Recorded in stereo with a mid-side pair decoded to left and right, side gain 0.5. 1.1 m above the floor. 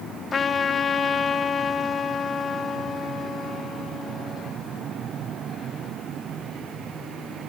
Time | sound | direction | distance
0.3 | a trumpet | 35° left | 1.7 m